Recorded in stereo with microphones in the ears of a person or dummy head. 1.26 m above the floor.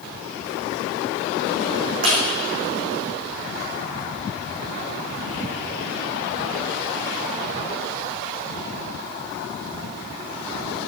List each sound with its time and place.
2.0 s breaking glass: 45° right (ahead or behind), 4.5 m